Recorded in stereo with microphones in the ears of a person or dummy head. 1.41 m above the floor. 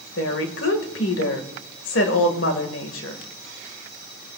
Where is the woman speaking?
75° left (ahead or behind), 1.8 m.